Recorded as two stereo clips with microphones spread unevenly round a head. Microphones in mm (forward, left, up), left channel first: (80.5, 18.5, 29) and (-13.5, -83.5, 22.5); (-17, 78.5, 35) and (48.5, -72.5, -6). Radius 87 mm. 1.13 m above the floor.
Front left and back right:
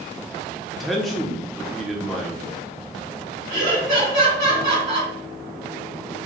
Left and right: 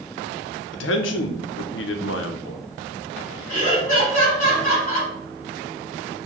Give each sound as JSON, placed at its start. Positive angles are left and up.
{"t": 0.7, "sound": "a man speaking", "azimuth_deg": 140, "distance_m": 0.6}
{"t": 3.5, "sound": "laughter", "azimuth_deg": 175, "distance_m": 1.8}